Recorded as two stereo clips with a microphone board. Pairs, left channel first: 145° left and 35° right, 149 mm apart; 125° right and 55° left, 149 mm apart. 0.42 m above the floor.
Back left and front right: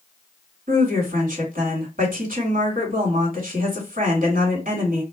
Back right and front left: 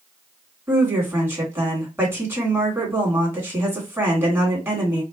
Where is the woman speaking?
20° right, 3 m.